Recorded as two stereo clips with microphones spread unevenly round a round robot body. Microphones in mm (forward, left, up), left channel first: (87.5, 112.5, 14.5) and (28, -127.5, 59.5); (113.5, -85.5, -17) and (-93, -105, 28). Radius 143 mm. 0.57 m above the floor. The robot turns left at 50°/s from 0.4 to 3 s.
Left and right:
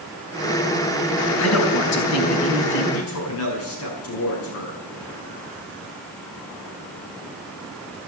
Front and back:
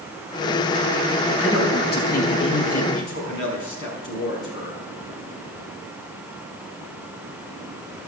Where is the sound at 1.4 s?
100° left, 4 m; by 2.8 s 30° left, 4 m.